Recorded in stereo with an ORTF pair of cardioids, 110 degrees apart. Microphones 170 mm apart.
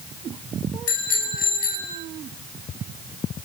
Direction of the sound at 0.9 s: 55° left.